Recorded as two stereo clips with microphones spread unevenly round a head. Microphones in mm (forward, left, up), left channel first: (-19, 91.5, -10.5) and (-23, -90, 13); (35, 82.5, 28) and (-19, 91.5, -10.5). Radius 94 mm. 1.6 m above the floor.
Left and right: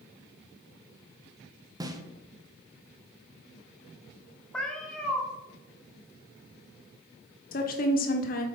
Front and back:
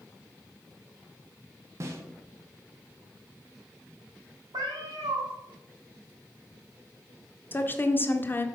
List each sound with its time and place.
1.8 s a snare drum: 165° right, 0.9 m
4.5 s a cat meowing: straight behind, 1.4 m
7.5 s a woman speaking: 40° left, 1.2 m